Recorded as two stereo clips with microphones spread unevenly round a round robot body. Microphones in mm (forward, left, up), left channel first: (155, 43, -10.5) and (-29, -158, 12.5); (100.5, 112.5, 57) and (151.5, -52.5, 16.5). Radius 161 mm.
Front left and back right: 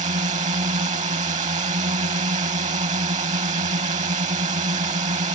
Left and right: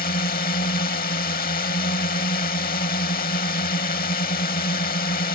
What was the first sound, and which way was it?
A drone, 160° left.